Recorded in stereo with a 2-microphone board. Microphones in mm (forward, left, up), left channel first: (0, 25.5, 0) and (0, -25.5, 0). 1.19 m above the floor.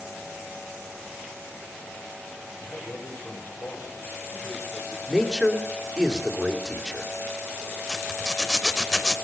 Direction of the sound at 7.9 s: 10° left (ahead or behind).